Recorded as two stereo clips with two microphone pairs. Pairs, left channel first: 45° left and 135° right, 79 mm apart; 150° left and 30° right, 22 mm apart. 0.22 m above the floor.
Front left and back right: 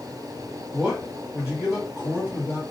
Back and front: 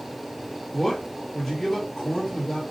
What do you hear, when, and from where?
0.7 s a man speaking: 160° left, 1.0 m